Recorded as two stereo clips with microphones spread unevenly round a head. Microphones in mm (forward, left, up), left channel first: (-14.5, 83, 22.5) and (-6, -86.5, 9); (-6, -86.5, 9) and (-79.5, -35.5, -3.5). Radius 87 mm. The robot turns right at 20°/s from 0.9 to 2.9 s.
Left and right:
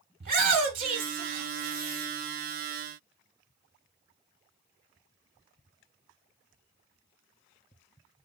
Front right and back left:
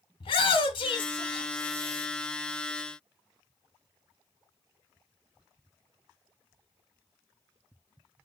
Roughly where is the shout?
Ahead right.